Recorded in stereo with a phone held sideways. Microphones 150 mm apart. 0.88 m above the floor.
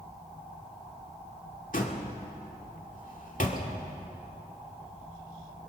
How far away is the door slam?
About 2 m.